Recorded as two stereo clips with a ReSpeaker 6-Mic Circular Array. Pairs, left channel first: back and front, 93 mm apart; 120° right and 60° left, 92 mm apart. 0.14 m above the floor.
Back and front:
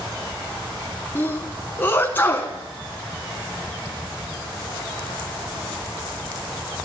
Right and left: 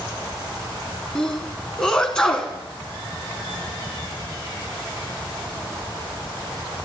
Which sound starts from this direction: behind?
A sneeze, at 1.1 s.